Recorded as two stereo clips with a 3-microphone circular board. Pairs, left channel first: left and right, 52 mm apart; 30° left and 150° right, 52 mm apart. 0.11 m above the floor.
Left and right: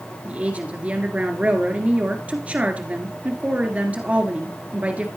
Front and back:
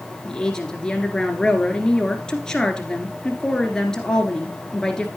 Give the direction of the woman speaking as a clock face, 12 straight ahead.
1 o'clock.